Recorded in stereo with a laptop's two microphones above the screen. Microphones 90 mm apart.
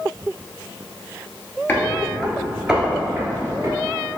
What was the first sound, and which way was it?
Footsteps, 25° left (ahead or behind).